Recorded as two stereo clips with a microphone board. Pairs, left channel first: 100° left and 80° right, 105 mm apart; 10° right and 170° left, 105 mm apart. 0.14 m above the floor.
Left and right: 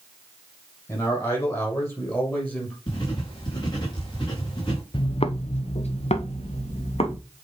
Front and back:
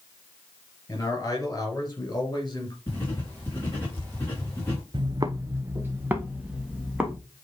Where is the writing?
55° left, 3.5 m.